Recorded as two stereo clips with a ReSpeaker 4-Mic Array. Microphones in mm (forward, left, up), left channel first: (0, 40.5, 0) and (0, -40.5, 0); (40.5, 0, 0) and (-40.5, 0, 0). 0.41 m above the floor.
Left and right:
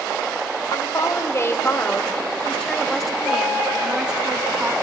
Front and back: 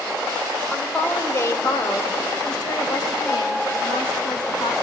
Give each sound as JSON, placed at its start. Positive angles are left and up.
{"t": 0.7, "sound": "a woman speaking", "azimuth_deg": 65, "distance_m": 1.6}